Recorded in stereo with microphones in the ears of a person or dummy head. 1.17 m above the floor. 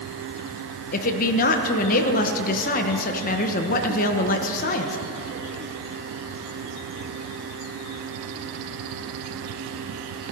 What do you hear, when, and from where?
0.9 s a woman speaking: 40° left (ahead or behind), 0.8 m